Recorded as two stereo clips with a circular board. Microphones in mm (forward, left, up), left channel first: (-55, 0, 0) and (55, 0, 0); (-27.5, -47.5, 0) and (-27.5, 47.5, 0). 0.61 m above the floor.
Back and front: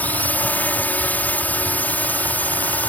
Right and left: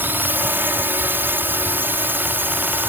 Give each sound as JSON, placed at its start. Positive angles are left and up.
{"t": 0.0, "sound": "a drone", "azimuth_deg": 125}